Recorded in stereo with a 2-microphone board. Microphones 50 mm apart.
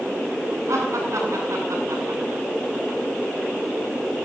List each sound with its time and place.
0.7 s laughter: 80° right, 8.5 m